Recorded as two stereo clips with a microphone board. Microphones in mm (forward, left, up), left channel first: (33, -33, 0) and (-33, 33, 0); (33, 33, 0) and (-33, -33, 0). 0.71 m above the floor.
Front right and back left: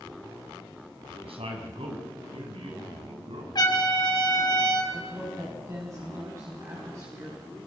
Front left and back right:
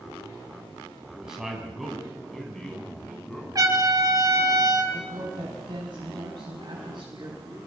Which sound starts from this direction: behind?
A woman speaking, at 4.9 s.